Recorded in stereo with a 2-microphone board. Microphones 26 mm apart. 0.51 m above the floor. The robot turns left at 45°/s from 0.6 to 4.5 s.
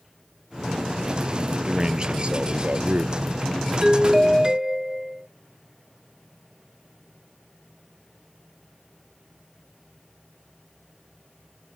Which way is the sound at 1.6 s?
20° right.